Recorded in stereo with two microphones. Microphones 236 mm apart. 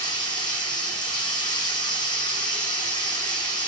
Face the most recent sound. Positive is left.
turn(degrees=20)  # may be behind; listen again after turning